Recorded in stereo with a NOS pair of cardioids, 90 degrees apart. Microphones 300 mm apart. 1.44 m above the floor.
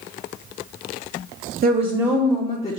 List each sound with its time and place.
1.6 s a woman speaking: 35° right, 0.6 m; by 2.8 s 25° left, 0.9 m